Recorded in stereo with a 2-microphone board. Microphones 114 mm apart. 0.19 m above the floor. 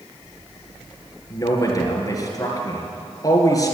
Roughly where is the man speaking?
Left.